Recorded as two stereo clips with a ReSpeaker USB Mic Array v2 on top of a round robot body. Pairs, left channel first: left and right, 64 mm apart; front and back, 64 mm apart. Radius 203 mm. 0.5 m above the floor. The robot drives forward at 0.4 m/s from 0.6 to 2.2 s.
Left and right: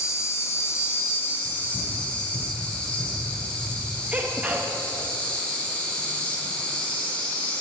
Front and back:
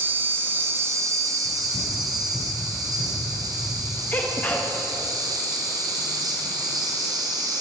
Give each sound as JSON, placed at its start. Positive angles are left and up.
{"t": 0.0, "sound": "an insect", "azimuth_deg": 130, "distance_m": 0.7}
{"t": 1.4, "sound": "running footsteps", "azimuth_deg": 40, "distance_m": 1.4}
{"t": 4.1, "sound": "a sneeze", "azimuth_deg": -40, "distance_m": 0.7}